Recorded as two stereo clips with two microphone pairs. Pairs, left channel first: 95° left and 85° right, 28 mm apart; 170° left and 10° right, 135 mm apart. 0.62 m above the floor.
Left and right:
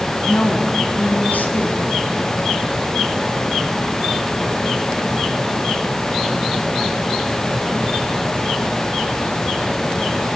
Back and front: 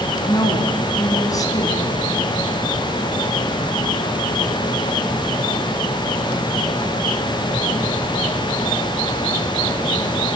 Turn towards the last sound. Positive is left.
turn(degrees=105)